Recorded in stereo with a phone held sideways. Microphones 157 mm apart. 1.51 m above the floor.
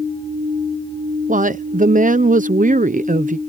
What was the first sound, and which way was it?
A woman speaking, 60° right (ahead or behind).